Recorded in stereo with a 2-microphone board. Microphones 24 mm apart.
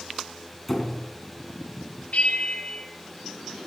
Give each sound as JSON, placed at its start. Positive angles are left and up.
{"t": 0.7, "sound": "a squeak", "side_deg": 5, "distance_m": 3.0}
{"t": 2.1, "sound": "a bell", "side_deg": 65, "distance_m": 7.0}